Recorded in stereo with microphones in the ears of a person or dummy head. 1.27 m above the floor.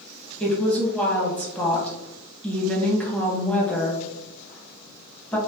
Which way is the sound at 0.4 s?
20° left (ahead or behind).